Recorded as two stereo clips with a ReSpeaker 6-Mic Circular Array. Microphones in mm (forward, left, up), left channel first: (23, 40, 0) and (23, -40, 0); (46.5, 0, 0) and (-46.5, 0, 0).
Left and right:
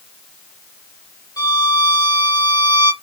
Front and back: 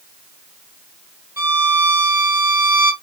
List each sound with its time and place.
1.4 s a violin: 115° left, 1.5 m